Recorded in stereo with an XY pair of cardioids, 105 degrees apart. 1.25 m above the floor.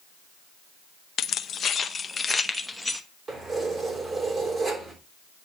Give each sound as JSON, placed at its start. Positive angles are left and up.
{"t": 1.2, "sound": "keys jangling", "azimuth_deg": 65, "distance_m": 0.8}
{"t": 3.3, "sound": "keys jangling", "azimuth_deg": -30, "distance_m": 3.0}